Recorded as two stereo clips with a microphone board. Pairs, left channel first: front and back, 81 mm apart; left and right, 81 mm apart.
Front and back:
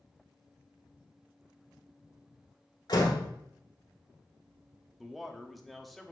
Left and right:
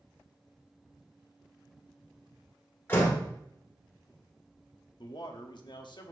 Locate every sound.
2.9 s a door slam: 25° left, 1.7 m
5.0 s a man speaking: 90° left, 0.9 m